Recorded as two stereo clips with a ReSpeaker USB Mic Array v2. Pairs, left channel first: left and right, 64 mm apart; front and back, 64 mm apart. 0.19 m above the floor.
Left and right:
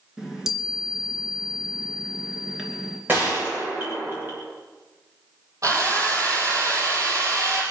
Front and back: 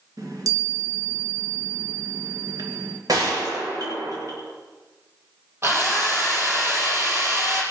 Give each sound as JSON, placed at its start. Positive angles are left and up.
{"t": 0.2, "sound": "a chime", "azimuth_deg": -175, "distance_m": 2.5}
{"t": 3.1, "sound": "a gunshot", "azimuth_deg": -150, "distance_m": 7.0}
{"t": 5.6, "sound": "a drill", "azimuth_deg": -125, "distance_m": 5.0}